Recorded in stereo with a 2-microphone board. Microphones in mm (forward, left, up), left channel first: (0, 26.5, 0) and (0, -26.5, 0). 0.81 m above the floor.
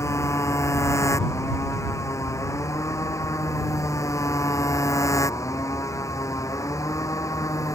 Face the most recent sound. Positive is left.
turn(degrees=85)